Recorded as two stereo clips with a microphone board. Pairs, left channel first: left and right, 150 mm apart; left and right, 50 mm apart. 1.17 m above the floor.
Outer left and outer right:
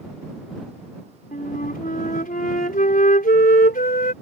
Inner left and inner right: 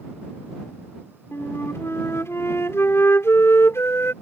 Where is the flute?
80° left.